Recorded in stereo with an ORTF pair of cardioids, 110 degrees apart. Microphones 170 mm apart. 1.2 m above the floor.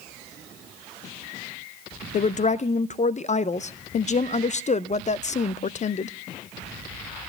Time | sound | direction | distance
2.1 | a woman speaking | 45° left | 0.7 m